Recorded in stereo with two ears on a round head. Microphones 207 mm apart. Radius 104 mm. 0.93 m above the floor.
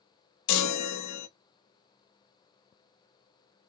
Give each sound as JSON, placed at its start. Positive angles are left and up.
{"t": 0.5, "sound": "a chime", "side_deg": 80, "distance_m": 0.6}